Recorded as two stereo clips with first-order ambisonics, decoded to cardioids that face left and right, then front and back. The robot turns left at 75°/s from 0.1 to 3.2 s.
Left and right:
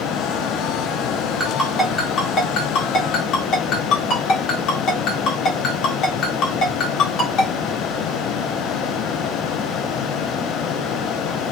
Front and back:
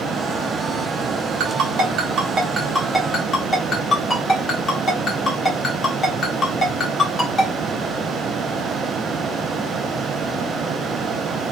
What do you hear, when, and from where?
1.4 s a ringtone: 165° right, 1.1 m; by 7.5 s 60° left, 1.1 m